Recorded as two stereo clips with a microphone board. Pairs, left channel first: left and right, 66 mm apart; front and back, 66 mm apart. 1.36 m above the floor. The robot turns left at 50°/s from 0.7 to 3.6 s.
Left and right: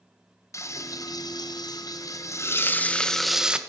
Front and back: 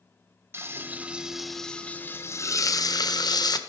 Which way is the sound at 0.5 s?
130° left.